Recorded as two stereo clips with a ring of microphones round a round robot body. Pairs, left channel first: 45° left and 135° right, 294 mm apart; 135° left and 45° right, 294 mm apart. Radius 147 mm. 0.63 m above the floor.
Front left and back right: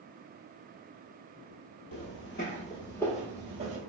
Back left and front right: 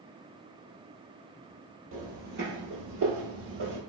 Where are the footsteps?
15° left, 1.1 m; by 3.8 s 80° right, 0.9 m.